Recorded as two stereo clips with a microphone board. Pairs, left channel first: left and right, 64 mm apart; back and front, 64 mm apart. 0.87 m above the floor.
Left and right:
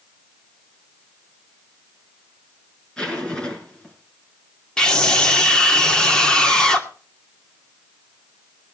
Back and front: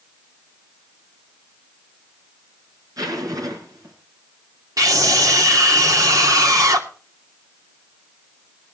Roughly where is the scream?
Ahead.